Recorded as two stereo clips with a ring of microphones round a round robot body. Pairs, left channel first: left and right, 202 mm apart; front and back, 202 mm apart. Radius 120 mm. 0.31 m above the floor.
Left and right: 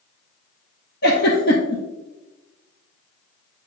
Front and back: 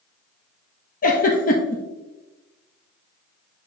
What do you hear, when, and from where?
1.0 s a giggle: 45° left, 1.4 m